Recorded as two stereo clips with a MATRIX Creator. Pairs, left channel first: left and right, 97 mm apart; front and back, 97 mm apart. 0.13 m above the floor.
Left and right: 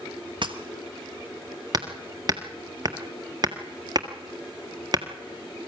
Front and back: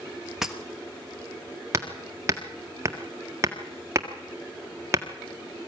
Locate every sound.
0.4 s breaking glass: 100° right, 1.3 m
1.7 s hammering: 125° right, 1.7 m